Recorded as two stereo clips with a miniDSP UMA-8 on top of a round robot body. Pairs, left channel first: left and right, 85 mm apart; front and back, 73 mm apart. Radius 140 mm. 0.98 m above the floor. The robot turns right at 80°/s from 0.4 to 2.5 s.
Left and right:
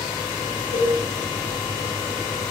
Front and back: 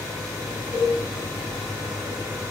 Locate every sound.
0.7 s a cowbell: 120° left, 6.5 m; by 1.0 s 140° left, 6.5 m